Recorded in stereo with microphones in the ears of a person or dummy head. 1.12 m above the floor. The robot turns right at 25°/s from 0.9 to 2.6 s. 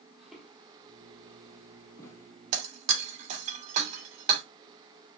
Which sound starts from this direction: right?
Breaking glass, at 2.5 s.